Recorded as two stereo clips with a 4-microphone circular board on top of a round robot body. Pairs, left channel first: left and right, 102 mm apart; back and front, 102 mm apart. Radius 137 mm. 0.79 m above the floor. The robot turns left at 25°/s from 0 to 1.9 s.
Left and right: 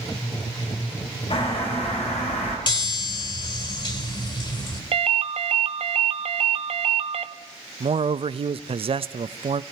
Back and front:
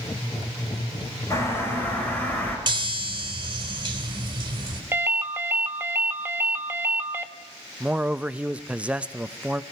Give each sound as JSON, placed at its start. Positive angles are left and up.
{"t": 1.3, "sound": "a bird", "azimuth_deg": 120, "distance_m": 6.0}
{"t": 2.7, "sound": "a chime", "azimuth_deg": 50, "distance_m": 3.5}
{"t": 4.9, "sound": "a ringtone", "azimuth_deg": -70, "distance_m": 1.0}
{"t": 7.8, "sound": "a man speaking", "azimuth_deg": -80, "distance_m": 0.6}